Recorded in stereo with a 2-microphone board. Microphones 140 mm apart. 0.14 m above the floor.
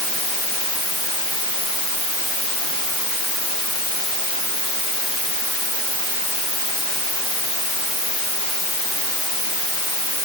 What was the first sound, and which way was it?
Only background noise.